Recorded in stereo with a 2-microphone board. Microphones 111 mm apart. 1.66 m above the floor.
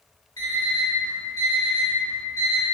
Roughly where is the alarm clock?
Left.